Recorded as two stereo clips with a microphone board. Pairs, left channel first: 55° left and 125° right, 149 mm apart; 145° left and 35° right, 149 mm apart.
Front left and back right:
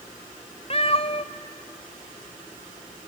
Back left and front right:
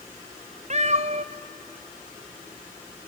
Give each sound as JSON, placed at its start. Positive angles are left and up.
{"t": 0.7, "sound": "a cat meowing", "azimuth_deg": 5, "distance_m": 0.9}